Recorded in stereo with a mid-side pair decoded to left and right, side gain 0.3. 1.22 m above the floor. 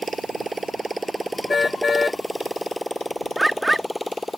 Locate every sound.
0.0 s a motorcycle: 45° right; by 4.4 s 10° left
1.5 s a car horn: 40° left
3.4 s a bird: 20° right